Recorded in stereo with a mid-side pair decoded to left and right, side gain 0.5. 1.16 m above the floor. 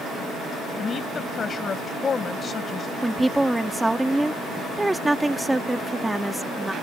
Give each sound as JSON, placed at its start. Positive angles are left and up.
{"t": 0.8, "sound": "a woman speaking", "azimuth_deg": 40}
{"t": 3.0, "sound": "a woman speaking", "azimuth_deg": -10}